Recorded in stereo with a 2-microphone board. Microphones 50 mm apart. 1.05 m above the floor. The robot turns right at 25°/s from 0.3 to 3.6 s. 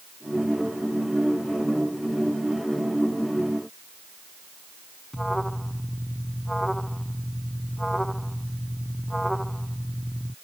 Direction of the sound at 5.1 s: 5° left (ahead or behind).